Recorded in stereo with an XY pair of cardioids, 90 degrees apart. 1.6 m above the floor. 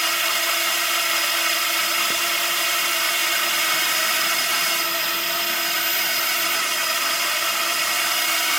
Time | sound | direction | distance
0.0 | a drone | 5° right | ?